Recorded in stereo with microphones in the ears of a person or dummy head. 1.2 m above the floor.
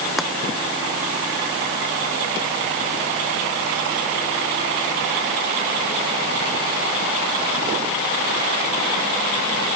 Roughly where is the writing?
I don't hear writing.